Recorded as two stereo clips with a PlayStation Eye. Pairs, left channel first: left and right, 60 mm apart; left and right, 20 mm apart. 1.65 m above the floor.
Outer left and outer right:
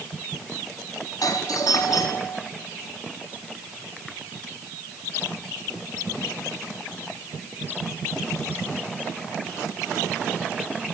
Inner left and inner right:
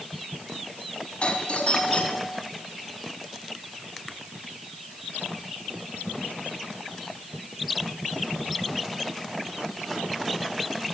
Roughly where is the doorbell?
Left.